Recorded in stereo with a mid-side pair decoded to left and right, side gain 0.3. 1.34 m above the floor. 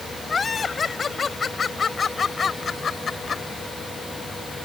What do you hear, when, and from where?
0.3 s laughter: 45° left; by 3.4 s 55° left